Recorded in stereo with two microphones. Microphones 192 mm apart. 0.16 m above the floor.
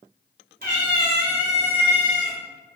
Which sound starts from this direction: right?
A cat meowing, at 0.6 s.